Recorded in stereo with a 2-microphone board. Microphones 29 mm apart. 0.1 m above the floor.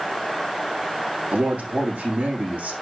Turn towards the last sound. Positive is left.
turn(degrees=-75)  # may be behind; listen again after turning